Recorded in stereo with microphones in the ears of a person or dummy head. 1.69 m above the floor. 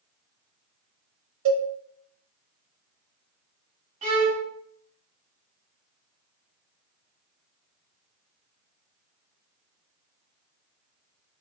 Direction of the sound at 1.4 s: 75° right (ahead or behind).